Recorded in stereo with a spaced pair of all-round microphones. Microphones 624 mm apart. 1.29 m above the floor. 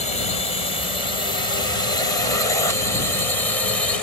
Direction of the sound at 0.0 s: 85° left.